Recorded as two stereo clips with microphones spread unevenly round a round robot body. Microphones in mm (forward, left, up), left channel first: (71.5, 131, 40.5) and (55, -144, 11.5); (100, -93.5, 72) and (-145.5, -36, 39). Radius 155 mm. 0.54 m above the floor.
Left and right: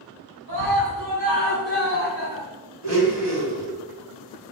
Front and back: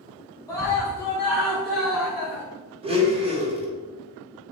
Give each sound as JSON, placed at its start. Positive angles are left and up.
{"t": 0.5, "sound": "a scream", "azimuth_deg": -90, "distance_m": 4.0}
{"t": 2.8, "sound": "a blender", "azimuth_deg": -125, "distance_m": 3.0}